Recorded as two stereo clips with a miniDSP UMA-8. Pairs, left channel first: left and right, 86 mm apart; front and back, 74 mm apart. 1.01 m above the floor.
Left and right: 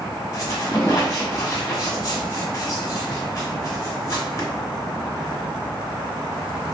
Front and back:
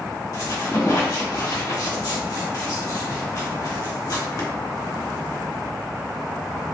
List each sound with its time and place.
0.3 s a squeak: 35° left, 1.2 m